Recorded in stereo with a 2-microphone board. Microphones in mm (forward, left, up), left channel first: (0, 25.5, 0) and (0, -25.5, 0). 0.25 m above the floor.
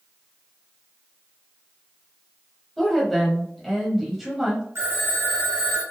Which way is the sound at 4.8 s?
60° right (ahead or behind).